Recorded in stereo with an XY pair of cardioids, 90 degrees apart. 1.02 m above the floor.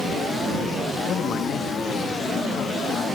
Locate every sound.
1.0 s a man speaking: 70° left